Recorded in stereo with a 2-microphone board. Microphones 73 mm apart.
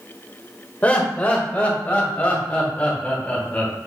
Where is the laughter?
20° left (ahead or behind), 1.9 m.